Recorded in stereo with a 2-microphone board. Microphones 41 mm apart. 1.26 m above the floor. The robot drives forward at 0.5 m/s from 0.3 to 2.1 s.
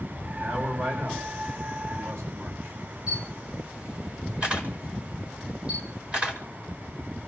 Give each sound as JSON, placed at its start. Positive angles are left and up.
{"t": 0.3, "sound": "a man speaking", "side_deg": -65, "distance_m": 9.5}
{"t": 3.1, "sound": "a camera shutter", "side_deg": -25, "distance_m": 5.0}